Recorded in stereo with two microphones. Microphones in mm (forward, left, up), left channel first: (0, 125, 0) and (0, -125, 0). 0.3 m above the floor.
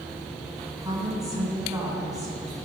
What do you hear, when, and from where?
0.8 s a woman speaking: 15° right (ahead or behind), 2.5 m